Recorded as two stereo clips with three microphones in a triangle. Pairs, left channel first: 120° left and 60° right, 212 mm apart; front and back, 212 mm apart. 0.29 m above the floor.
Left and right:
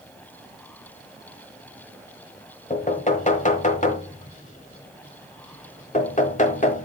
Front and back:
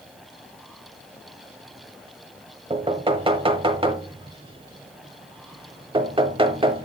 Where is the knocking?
135° left, 1.2 m.